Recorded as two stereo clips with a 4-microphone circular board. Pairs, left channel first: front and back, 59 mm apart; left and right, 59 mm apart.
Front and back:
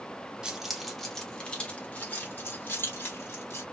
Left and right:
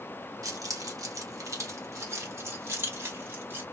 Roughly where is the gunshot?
No gunshot in this recording.